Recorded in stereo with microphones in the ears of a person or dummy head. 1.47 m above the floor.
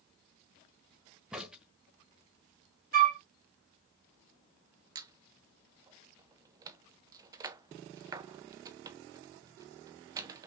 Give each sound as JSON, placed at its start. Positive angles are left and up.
{"t": 1.3, "sound": "a crack", "side_deg": -5, "distance_m": 1.3}
{"t": 2.9, "sound": "a flute", "side_deg": -45, "distance_m": 1.3}
{"t": 5.0, "sound": "a squeak", "side_deg": -25, "distance_m": 0.5}